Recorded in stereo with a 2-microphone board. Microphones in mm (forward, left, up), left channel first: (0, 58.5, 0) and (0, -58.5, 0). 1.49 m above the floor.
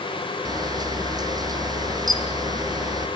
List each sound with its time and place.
0.5 s a camera shutter: 35° right (ahead or behind), 1.6 m